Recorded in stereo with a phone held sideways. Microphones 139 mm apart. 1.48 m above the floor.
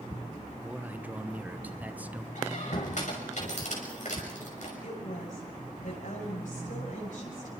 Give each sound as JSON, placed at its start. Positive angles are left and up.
{"t": 0.6, "sound": "a man speaking", "side_deg": -10, "distance_m": 1.2}
{"t": 2.4, "sound": "a squeak", "side_deg": 60, "distance_m": 5.5}
{"t": 4.8, "sound": "a woman speaking", "side_deg": 75, "distance_m": 8.5}